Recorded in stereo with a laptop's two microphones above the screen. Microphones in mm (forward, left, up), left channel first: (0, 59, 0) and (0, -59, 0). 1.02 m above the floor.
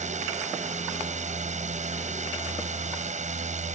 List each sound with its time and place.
0.0 s a drone: 75° right (ahead or behind)